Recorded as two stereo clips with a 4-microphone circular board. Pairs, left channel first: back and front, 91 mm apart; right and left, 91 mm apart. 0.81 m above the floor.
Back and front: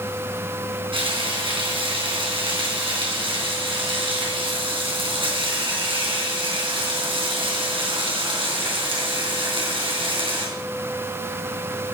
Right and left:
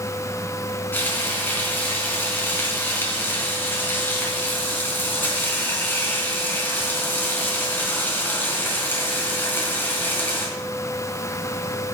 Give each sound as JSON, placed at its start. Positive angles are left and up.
{"t": 0.9, "sound": "frying", "azimuth_deg": -20, "distance_m": 3.5}